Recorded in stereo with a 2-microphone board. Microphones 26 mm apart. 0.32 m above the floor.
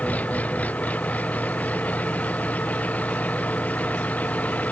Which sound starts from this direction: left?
An engine running, at 0.0 s.